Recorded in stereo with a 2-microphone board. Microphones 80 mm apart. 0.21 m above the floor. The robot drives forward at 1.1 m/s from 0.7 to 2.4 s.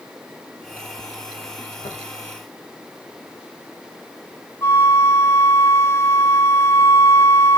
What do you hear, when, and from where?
1.8 s tapping: 85° left, 5.5 m; by 2.0 s 90° left, 5.5 m
4.6 s a flute: 35° left (ahead or behind), 1.0 m